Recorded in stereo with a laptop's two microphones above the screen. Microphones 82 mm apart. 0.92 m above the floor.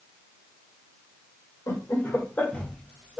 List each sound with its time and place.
1.7 s laughter: 40° left (ahead or behind), 1.2 m; by 3.2 s 5° right (ahead or behind), 1.1 m